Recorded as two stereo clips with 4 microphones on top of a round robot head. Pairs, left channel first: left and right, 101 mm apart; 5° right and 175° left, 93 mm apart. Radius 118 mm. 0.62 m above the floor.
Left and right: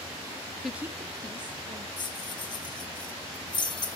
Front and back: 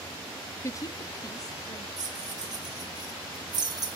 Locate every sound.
0.6 s a woman speaking: straight ahead, 0.5 m; by 1.9 s 55° right, 1.5 m
2.0 s keys jangling: 135° left, 2.5 m